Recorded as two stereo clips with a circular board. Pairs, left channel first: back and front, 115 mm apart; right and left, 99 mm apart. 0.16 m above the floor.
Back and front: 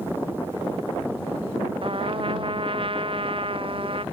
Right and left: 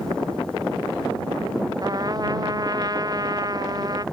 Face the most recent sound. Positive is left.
turn(degrees=40)